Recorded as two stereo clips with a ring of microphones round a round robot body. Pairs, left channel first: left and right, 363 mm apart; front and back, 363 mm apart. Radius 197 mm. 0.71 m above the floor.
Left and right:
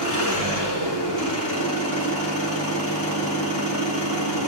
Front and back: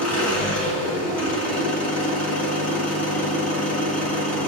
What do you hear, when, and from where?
0.0 s an engine running: 45° right, 4 m